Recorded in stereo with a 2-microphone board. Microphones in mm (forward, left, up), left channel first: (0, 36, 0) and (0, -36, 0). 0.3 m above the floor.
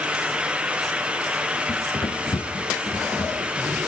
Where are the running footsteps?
80° left, 1.2 m; by 3.9 s 60° left (ahead or behind), 4 m.